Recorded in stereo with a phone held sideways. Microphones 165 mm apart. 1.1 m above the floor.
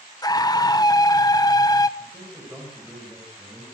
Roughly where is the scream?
Left.